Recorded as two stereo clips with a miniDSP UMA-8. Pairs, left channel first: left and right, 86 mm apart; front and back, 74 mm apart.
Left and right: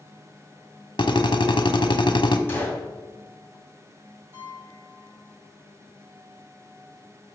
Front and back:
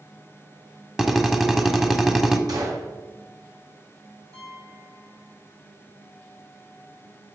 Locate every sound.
1.0 s a drill: 100° left, 1.1 m
2.5 s a gunshot: 155° left, 3 m
4.3 s a piano: 150° right, 4.5 m